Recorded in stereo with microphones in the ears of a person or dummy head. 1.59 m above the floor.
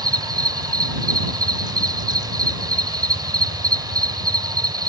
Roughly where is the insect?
Right.